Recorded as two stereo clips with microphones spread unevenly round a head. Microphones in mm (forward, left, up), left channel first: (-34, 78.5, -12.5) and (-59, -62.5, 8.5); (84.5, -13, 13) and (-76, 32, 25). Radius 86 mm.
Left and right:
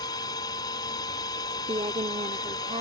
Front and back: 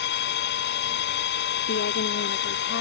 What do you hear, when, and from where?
0.0 s a machine running: 10° left
1.7 s a woman speaking: 35° right